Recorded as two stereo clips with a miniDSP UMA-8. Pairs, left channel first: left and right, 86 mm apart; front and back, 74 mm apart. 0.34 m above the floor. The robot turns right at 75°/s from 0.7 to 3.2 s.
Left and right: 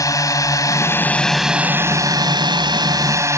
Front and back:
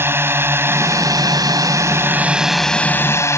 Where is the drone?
130° left; by 3.4 s 45° right.